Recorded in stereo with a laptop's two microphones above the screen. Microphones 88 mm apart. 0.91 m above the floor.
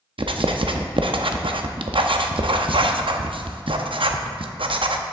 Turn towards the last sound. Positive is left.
turn(degrees=-80)